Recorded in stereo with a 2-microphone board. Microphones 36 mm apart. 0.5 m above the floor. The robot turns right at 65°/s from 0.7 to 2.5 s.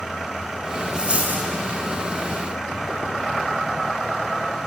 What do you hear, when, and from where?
0.9 s a dropped coin: 150° right, 0.9 m; by 1.5 s 115° right, 0.9 m